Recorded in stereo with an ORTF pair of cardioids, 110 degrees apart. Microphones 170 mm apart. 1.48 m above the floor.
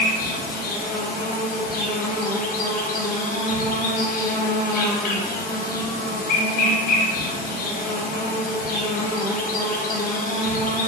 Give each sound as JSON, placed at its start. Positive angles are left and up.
{"t": 0.0, "sound": "an insect", "azimuth_deg": 60, "distance_m": 0.8}